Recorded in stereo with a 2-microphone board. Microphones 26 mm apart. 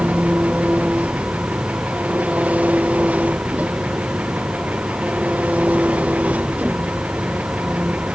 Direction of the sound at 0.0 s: 80° right.